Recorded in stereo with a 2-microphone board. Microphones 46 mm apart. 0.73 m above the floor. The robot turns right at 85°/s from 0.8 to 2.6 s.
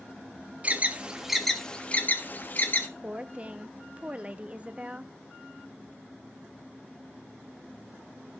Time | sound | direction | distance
0.6 | an alarm | 30° right (ahead or behind) | 1.3 m
3.0 | a woman speaking | 30° right (ahead or behind) | 0.8 m